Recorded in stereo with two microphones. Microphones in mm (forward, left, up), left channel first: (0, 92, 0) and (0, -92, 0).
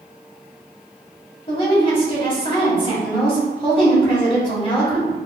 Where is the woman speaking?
30° left (ahead or behind), 1.9 m.